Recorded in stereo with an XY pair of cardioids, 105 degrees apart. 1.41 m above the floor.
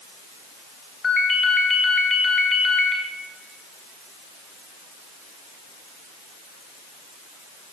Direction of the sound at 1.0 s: 40° left.